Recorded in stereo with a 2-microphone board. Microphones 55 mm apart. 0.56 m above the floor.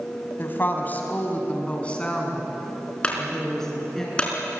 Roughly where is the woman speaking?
Left.